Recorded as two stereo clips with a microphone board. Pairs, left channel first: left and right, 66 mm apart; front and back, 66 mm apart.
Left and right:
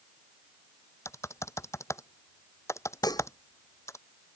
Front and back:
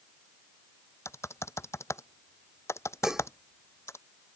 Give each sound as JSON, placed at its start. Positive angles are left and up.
{"t": 1.1, "sound": "typing on a keyboard", "azimuth_deg": 45}
{"t": 3.0, "sound": "dishes clattering", "azimuth_deg": 100}